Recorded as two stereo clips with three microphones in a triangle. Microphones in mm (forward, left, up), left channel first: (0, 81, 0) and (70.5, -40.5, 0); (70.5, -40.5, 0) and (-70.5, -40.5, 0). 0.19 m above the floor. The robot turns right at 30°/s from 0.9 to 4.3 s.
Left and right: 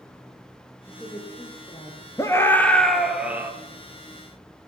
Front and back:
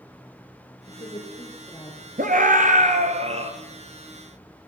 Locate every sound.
0.9 s a woman speaking: 40° left, 6 m; by 2.1 s 75° left, 6 m
2.2 s a scream: 175° right, 4 m; by 3.5 s 135° right, 4 m